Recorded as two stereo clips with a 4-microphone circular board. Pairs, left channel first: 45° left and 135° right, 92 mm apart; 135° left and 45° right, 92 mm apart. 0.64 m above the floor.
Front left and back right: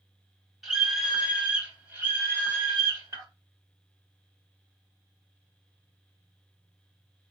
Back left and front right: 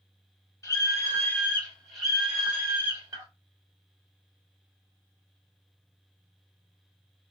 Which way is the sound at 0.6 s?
140° left.